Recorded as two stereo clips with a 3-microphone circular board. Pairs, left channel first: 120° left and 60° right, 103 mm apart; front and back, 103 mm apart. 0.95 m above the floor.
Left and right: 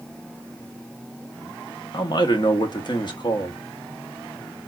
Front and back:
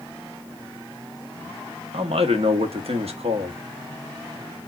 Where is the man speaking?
165° left, 1.2 m.